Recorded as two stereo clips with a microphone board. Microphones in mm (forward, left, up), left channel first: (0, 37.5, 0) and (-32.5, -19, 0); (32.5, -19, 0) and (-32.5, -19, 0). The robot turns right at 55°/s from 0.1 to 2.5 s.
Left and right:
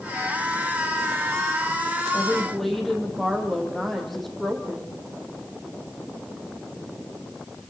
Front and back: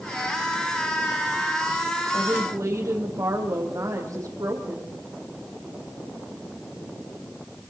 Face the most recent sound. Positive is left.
turn(degrees=150)